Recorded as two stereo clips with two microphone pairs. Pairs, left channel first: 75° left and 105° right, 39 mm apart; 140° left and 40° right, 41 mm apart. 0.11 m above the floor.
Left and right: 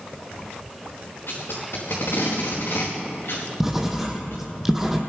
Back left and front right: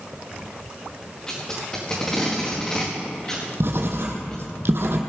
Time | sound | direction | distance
1.3 | tape being pulled | 70° left | 4.5 m
3.6 | writing | 25° right | 1.7 m